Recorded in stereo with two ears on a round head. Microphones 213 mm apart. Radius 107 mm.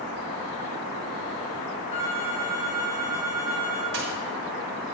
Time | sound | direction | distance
1.9 | a phone ringing | 30° left (ahead or behind) | 1.9 m
3.9 | a dropped coin | 55° right (ahead or behind) | 2.5 m